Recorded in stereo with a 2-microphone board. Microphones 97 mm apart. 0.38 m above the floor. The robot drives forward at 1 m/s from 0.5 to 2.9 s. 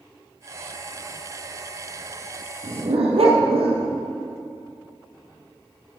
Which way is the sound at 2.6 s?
85° right.